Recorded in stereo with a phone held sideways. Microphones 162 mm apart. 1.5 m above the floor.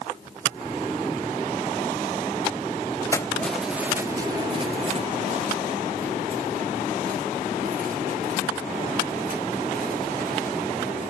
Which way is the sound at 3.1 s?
20° left (ahead or behind).